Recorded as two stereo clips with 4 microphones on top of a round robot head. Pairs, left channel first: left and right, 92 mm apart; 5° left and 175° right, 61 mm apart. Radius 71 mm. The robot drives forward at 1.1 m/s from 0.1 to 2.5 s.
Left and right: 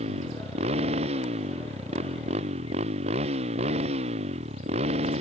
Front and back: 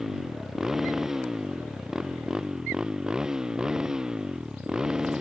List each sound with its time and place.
0.0 s a motorcycle: 90° right